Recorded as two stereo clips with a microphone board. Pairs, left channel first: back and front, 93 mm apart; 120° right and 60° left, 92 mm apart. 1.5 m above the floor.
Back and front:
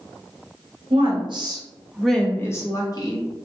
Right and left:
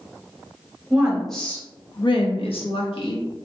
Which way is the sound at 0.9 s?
20° right.